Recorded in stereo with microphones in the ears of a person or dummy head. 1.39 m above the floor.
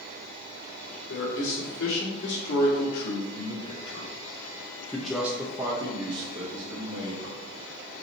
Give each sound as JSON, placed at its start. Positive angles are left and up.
{"t": 1.1, "sound": "a man speaking", "side_deg": 80, "distance_m": 3.5}